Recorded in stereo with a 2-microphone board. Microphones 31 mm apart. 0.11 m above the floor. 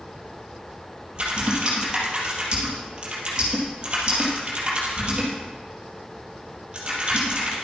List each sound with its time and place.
1.1 s typing on a keyboard: 30° right (ahead or behind), 3.5 m